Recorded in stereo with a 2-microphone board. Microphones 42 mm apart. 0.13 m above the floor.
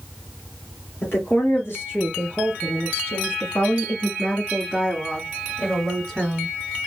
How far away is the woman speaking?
About 3 m.